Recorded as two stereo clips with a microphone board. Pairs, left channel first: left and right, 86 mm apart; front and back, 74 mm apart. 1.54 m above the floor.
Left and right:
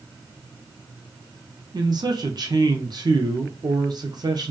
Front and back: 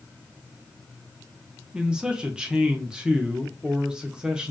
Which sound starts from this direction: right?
A man speaking, at 1.7 s.